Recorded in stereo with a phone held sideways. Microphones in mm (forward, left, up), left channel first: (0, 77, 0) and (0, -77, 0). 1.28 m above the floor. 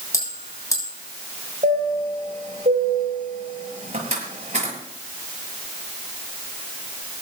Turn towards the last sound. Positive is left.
turn(degrees=-45)  # may be behind; listen again after turning